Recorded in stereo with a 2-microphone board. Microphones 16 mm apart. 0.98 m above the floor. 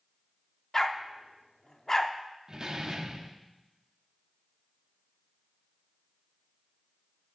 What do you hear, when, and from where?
0.7 s a dog barking: 25° left (ahead or behind), 0.8 m
2.5 s a door slam: 40° right (ahead or behind), 1.0 m